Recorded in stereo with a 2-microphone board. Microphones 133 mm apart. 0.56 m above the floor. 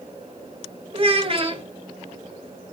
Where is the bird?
I don't hear a bird.